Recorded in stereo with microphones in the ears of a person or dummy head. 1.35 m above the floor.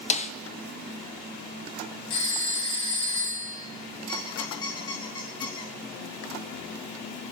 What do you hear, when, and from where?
0.1 s a snare drum: 35° left (ahead or behind), 0.6 m
2.1 s a phone ringing: 35° left (ahead or behind), 6 m
4.1 s a squeak: 20° left (ahead or behind), 1.9 m